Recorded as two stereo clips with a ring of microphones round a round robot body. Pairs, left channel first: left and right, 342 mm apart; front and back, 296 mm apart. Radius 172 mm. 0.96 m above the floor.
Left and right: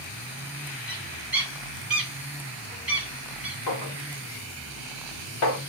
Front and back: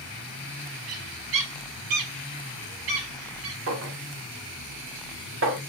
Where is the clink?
135° left, 2 m.